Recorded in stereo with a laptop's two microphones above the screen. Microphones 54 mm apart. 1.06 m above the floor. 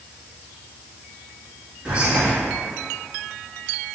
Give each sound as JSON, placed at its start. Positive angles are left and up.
{"t": 1.9, "sound": "whispering", "side_deg": -25, "distance_m": 1.4}